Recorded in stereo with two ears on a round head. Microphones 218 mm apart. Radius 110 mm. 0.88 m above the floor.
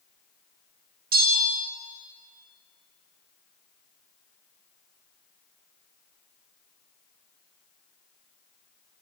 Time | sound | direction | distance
1.1 | a bell | 40° right (ahead or behind) | 1.3 m